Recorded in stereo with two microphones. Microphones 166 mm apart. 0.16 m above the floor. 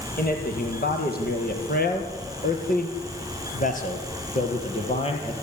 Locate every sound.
0.2 s a man speaking: 70° left (ahead or behind), 5.5 m; by 5.3 s 35° left (ahead or behind), 4.5 m